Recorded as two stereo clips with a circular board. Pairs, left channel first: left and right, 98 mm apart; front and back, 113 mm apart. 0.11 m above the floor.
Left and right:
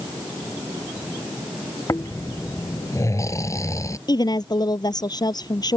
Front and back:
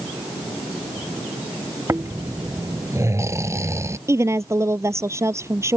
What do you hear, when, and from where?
1.9 s snoring: 130° left
4.1 s a woman speaking: 120° left